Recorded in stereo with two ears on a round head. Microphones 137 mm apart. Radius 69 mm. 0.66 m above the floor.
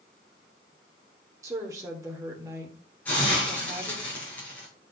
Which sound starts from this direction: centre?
A hiss, at 3.0 s.